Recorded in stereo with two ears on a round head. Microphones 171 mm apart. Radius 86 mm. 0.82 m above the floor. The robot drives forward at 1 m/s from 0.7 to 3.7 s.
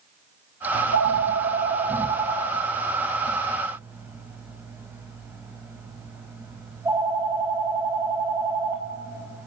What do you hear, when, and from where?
0.7 s a phone ringing: 70° right (ahead or behind), 0.6 m; by 9.5 s 10° right (ahead or behind), 3 m